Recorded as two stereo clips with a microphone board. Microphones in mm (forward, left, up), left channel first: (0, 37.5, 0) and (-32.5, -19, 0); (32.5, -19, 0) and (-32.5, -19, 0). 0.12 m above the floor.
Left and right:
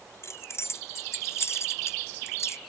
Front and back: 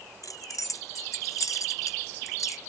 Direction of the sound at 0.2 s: 20° left.